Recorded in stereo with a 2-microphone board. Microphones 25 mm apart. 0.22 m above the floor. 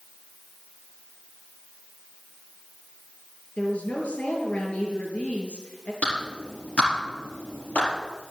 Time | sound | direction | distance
3.6 | a woman speaking | 70° left (ahead or behind) | 4 m
6.0 | a clap | 75° left (ahead or behind) | 4.5 m